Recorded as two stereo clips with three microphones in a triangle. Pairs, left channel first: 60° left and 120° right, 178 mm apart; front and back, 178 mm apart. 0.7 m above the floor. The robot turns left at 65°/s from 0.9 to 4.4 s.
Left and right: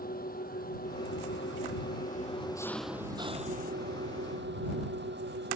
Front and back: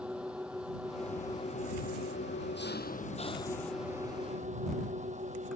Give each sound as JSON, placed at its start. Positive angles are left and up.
{"t": 0.0, "sound": "an engine running", "azimuth_deg": 95}